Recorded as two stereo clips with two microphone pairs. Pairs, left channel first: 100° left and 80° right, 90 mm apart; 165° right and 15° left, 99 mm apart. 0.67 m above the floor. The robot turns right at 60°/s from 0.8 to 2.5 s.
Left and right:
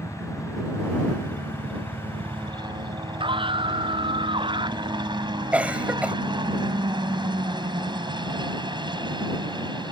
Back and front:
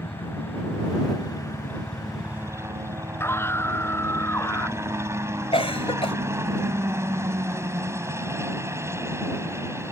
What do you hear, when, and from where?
0.0 s a helicopter: 150° right; by 9.9 s 50° right
3.2 s a scream: 100° right
5.5 s a cough: 155° right